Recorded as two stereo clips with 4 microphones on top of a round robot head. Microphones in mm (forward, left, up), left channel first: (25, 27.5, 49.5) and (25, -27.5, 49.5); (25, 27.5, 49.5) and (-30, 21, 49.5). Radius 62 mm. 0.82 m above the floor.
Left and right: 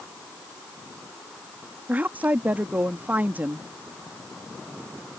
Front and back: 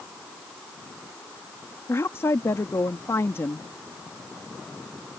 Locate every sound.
1.9 s a woman speaking: 35° right